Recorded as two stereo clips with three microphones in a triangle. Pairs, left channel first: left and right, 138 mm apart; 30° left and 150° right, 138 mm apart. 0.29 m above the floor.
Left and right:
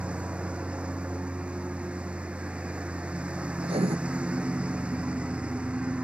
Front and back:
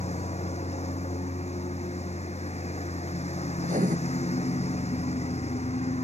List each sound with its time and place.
0.0 s a lawn mower: 10° right
3.6 s writing: 135° right